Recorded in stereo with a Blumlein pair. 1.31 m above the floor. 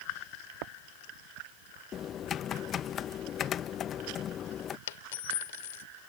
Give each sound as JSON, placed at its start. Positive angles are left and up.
{"t": 1.9, "sound": "typing on a keyboard", "azimuth_deg": 25}
{"t": 4.9, "sound": "a dropped coin", "azimuth_deg": 55}